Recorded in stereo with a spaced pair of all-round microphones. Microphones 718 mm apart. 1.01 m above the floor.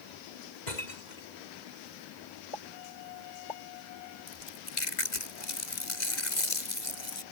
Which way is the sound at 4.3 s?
75° left (ahead or behind).